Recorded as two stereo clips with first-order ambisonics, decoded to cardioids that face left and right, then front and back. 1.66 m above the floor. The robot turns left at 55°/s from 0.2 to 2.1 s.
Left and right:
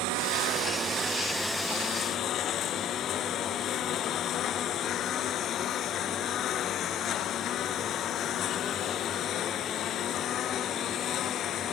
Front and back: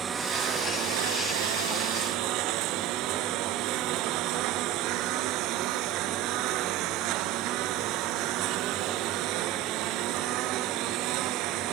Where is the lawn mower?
110° right; by 11.7 s 145° left.